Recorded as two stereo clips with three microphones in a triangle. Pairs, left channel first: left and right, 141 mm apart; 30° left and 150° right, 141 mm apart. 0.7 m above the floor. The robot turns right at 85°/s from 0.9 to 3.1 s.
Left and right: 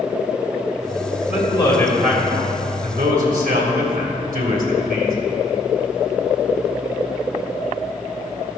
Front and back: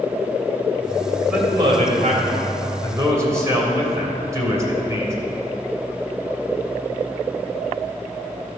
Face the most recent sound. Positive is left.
turn(degrees=-80)